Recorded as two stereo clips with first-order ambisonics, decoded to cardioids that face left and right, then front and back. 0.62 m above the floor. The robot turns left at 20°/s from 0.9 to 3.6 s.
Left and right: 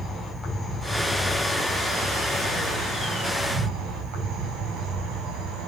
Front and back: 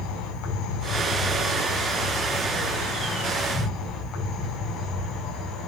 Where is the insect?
Straight ahead, 4.5 m; by 5.7 s 55° right, 4.5 m.